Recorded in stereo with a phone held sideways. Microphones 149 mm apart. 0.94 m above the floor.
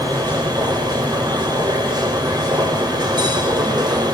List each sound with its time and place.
0.0 s a machine running: 30° right (ahead or behind), 3.5 m